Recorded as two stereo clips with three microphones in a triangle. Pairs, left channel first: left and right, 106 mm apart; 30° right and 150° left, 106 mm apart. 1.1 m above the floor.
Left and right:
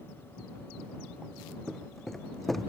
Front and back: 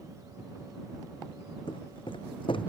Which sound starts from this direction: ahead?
Footsteps, at 1.7 s.